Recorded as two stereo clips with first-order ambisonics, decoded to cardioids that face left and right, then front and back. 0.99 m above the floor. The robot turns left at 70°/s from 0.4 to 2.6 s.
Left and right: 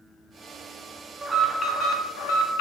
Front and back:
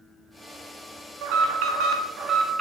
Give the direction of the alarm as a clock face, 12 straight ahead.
6 o'clock.